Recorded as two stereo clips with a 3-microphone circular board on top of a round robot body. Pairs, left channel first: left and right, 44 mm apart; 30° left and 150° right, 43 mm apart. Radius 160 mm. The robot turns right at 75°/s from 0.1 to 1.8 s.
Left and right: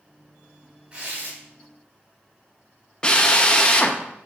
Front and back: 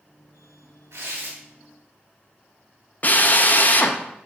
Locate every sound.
0.9 s tearing paper: 160° right, 2.5 m; by 1.4 s 125° right, 2.5 m
3.0 s a drill: 35° left, 1.2 m